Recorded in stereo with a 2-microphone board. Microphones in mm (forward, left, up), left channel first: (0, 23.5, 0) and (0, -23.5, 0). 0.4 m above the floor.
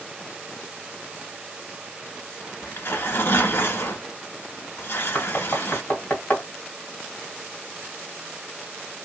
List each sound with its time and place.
2.6 s tearing paper: 55° left (ahead or behind), 1.2 m
5.2 s knocking: 30° left (ahead or behind), 1.8 m